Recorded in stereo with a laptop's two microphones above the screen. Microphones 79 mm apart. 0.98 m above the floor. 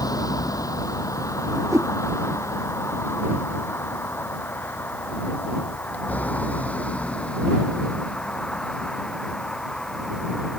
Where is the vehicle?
50° left (ahead or behind); by 10.6 s 5° left (ahead or behind).